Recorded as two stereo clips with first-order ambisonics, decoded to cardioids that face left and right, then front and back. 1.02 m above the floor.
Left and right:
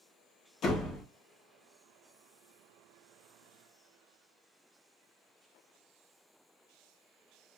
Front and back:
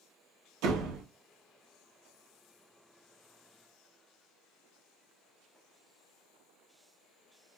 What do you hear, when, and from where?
0.6 s a door slam: 150° left, 1.0 m